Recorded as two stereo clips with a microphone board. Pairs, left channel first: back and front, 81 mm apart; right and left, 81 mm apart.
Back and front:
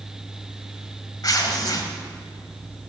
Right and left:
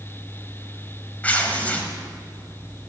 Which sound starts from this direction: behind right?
Tearing paper, at 1.2 s.